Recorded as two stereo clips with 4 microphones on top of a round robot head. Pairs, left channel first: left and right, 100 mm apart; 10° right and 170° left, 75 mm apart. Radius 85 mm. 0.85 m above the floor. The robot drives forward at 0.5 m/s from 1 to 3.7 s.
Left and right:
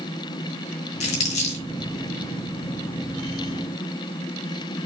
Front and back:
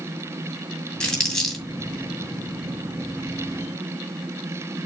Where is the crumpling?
70° left, 2.5 m; by 1.6 s 75° left, 2 m.